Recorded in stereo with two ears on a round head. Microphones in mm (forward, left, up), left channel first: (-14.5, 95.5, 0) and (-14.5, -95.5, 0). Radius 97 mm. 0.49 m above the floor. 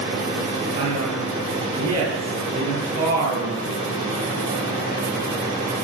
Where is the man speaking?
80° right, 10 m.